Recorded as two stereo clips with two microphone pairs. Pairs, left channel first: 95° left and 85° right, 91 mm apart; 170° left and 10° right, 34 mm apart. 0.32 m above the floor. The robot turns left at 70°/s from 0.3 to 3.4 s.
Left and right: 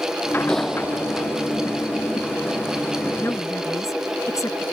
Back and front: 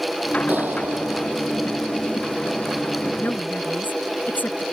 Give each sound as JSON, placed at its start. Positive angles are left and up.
{"t": 0.5, "sound": "a clap", "azimuth_deg": 15}
{"t": 3.2, "sound": "a woman speaking", "azimuth_deg": 165}